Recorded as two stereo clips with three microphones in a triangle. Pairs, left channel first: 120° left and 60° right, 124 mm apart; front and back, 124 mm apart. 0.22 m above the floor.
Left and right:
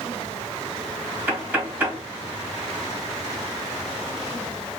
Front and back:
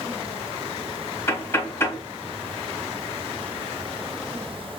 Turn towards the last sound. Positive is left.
turn(degrees=-15)